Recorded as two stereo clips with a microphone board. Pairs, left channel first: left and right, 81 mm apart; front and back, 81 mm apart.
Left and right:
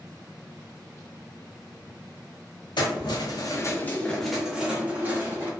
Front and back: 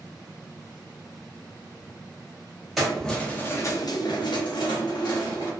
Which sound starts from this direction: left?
Keys jangling, at 2.8 s.